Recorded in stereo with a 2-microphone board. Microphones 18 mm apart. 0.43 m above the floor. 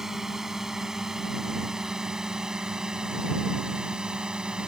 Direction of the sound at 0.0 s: 25° right (ahead or behind).